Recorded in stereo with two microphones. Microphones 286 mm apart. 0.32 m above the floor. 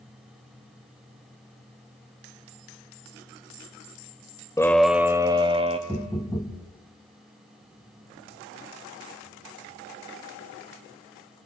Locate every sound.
4.6 s a scream: 10° left (ahead or behind), 0.8 m; by 5.8 s 20° right (ahead or behind), 1.6 m
5.9 s knocking: 15° left (ahead or behind), 1.7 m